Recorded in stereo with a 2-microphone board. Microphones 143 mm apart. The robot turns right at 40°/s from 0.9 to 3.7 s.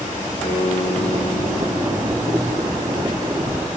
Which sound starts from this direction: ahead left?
A guitar, at 0.4 s.